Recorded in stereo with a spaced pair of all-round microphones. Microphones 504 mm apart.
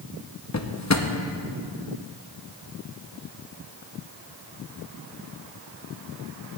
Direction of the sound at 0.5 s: 35° left (ahead or behind).